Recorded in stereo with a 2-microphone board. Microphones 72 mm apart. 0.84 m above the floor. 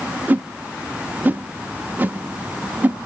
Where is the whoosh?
25° right (ahead or behind), 0.6 m.